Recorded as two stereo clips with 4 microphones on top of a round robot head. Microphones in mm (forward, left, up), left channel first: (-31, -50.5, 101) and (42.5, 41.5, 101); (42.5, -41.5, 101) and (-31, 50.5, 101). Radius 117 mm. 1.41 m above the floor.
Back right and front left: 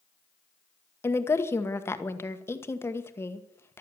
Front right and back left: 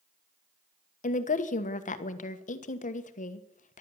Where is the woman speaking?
60° right, 1.4 m.